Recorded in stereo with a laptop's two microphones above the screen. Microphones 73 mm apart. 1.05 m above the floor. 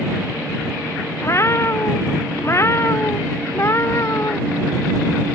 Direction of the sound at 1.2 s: 35° left (ahead or behind).